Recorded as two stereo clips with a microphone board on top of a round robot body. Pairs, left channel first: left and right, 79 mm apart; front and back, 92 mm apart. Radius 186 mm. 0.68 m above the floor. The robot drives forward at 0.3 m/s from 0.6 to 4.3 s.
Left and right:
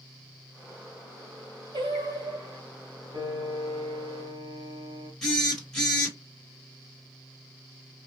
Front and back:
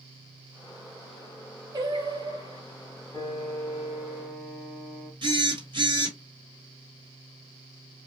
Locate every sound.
1.7 s singing: 130° right, 0.8 m; by 2.6 s 140° right, 1.0 m
3.1 s a piano: 70° right, 1.0 m; by 5.1 s 90° right, 0.9 m
5.2 s a phone buzzing: 175° left, 1.8 m